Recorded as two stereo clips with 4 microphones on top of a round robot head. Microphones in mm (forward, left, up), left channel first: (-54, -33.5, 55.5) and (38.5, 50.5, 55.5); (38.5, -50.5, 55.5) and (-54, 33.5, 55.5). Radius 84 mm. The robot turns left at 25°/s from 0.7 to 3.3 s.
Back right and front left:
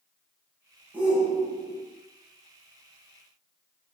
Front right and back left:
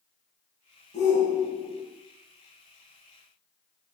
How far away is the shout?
About 1.2 m.